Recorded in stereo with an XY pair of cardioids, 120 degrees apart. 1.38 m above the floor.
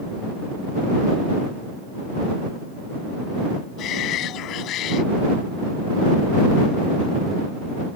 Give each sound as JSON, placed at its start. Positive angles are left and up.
{"t": 3.8, "sound": "a shout", "azimuth_deg": 70}